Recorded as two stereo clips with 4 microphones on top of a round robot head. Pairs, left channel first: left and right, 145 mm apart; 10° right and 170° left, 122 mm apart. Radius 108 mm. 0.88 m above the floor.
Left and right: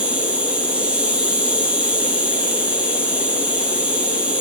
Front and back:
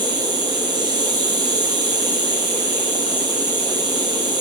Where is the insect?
165° right, 2.0 m.